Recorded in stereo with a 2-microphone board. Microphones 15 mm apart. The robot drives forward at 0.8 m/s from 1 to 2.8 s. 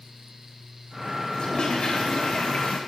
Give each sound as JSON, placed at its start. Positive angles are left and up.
{"t": 1.3, "sound": "a toilet flushing", "side_deg": 65, "distance_m": 4.0}